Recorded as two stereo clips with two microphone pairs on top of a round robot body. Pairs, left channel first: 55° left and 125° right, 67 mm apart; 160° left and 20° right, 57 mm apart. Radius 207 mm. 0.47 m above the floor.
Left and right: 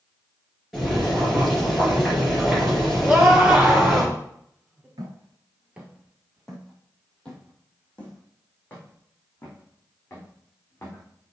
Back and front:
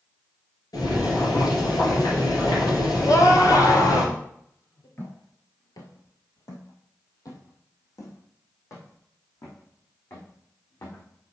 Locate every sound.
0.7 s boiling: 145° left, 4 m
3.0 s a scream: 160° left, 2.5 m
5.0 s footsteps: 150° right, 0.6 m; by 11.3 s 120° left, 4 m